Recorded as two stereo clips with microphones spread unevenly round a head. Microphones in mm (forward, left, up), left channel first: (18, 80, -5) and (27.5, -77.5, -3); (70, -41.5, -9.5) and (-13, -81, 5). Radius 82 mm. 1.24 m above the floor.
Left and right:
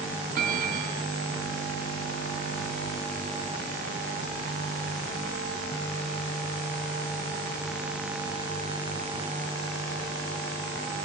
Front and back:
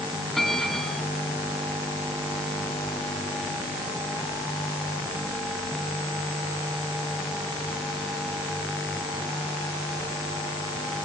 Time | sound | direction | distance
0.3 | a bell | 65° right | 2.5 m